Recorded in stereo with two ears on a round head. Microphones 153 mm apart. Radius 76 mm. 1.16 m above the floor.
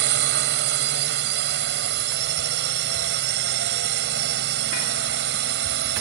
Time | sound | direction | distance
0.0 | a drone | 70° right (ahead or behind) | ?